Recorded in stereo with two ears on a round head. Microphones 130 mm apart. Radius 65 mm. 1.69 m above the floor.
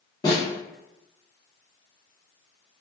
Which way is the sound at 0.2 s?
25° left (ahead or behind).